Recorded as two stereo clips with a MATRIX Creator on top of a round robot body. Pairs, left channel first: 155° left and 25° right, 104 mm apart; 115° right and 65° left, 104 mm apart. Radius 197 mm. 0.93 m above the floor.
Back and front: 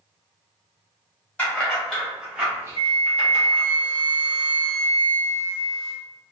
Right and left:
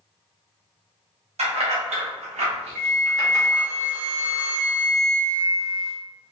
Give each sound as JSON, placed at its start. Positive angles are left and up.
{"t": 1.4, "sound": "keys jangling", "azimuth_deg": 85, "distance_m": 1.2}
{"t": 2.8, "sound": "a flute", "azimuth_deg": 5, "distance_m": 0.8}